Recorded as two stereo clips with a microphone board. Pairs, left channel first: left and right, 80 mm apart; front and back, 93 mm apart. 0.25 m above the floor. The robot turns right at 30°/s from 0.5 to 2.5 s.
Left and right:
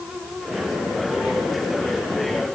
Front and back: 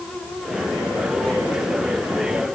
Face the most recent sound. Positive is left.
No sound to turn to.